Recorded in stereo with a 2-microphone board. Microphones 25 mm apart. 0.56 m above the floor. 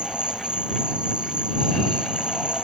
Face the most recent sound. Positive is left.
turn(degrees=-40)  # may be behind; listen again after turning